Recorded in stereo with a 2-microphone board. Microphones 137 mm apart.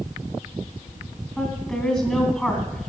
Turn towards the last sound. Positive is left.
turn(degrees=5)  # may be behind; listen again after turning